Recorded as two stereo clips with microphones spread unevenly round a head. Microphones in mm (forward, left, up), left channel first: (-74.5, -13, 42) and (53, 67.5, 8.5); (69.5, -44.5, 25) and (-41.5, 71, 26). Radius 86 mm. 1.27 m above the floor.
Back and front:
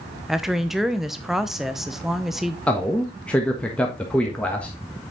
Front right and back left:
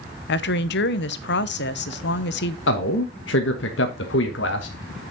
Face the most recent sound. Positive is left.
turn(degrees=-65)